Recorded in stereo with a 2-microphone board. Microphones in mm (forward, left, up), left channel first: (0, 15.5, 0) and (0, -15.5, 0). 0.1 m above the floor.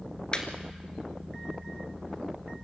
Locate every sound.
0.3 s laughter: 30° left (ahead or behind), 2 m